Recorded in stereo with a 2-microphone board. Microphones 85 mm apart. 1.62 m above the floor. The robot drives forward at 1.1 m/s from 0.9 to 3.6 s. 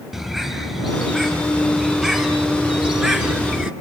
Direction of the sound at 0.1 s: 5° right (ahead or behind).